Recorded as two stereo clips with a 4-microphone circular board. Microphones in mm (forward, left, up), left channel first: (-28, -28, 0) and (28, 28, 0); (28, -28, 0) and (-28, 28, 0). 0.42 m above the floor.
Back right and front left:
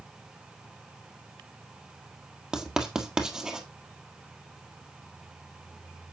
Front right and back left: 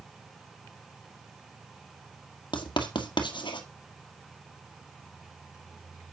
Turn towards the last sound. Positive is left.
turn(degrees=-40)